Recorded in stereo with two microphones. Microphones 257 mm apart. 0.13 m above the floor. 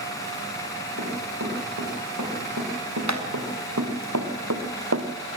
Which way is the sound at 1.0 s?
85° right.